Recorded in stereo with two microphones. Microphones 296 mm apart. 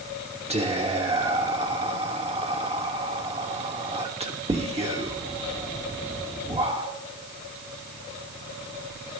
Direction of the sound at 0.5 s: 20° right (ahead or behind).